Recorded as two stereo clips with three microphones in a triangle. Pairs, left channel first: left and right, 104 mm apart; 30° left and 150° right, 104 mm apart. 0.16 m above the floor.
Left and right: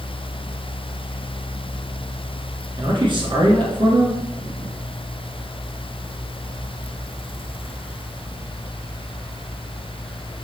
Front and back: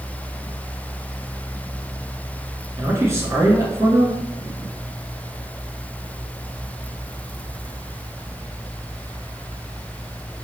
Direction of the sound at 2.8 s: 95° right.